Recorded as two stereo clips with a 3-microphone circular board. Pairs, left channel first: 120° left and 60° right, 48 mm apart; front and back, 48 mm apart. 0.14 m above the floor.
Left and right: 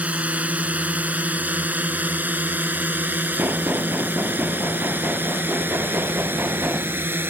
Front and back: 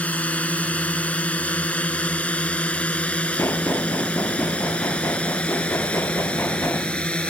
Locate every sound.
0.0 s a drone: 30° right; by 7.3 s 60° right
3.4 s knocking: 20° right